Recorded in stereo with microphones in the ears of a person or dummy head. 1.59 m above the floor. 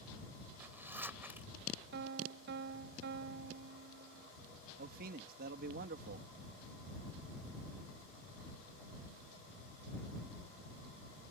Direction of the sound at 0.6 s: 10° right (ahead or behind).